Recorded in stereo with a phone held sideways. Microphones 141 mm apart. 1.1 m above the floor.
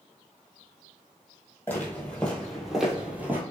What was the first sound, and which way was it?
Footsteps, 15° left (ahead or behind).